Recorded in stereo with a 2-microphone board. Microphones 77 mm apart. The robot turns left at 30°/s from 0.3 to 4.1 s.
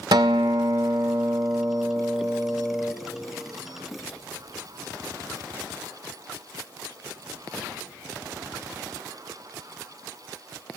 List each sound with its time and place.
0.1 s a guitar: 95° right, 0.5 m; by 2.9 s 175° right, 0.5 m